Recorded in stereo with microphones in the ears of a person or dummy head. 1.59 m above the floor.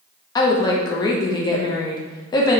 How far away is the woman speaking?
About 0.5 m.